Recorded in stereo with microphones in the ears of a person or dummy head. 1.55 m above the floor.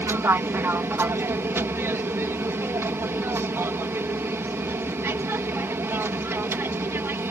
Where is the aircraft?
15° right (ahead or behind).